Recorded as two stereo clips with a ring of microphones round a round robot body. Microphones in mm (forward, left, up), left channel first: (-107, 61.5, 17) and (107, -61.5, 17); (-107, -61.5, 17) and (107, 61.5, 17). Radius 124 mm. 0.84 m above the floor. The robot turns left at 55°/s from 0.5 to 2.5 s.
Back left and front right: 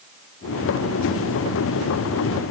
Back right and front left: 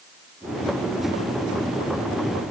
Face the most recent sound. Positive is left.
No sound to turn to.